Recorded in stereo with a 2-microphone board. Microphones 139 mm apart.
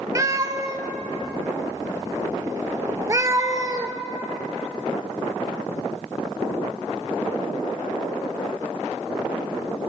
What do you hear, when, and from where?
0.1 s a cat meowing: 25° right (ahead or behind), 0.5 m